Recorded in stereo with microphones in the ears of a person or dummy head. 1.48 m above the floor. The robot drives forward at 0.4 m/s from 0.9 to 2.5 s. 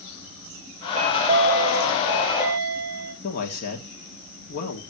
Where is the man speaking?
55° left (ahead or behind), 1.8 m.